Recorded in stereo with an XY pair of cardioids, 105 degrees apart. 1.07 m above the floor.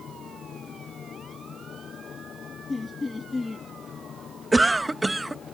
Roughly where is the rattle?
No rattle in this recording.